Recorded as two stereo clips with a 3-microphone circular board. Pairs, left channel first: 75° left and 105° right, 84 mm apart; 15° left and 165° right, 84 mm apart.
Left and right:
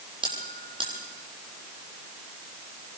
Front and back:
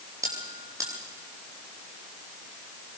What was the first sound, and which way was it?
A bell, 115° right.